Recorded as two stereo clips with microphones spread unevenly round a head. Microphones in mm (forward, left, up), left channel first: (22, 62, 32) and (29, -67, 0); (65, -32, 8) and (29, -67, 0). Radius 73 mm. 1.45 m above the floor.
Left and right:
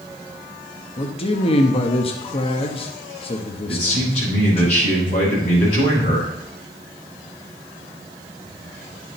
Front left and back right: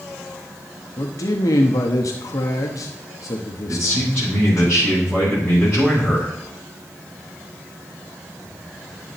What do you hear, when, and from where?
1.0 s a man speaking: 40° left, 1.0 m
3.7 s a man speaking: 140° left, 6.5 m